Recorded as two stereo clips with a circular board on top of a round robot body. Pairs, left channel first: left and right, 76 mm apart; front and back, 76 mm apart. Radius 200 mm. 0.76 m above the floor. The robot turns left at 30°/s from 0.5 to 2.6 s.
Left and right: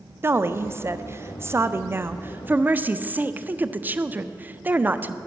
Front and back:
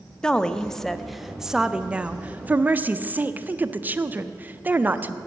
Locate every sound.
0.2 s a woman speaking: 70° right, 0.5 m; by 5.2 s 135° right, 0.5 m